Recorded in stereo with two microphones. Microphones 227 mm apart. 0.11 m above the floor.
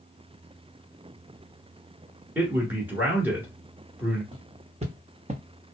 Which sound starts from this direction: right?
Footsteps, at 4.3 s.